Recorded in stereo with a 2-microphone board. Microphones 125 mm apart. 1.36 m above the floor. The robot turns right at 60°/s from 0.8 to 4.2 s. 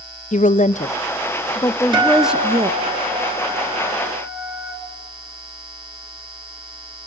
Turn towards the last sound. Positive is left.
turn(degrees=-5)